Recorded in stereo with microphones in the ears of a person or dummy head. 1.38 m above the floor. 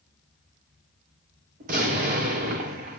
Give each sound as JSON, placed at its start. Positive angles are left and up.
{"t": 1.6, "sound": "an explosion", "side_deg": -50, "distance_m": 2.0}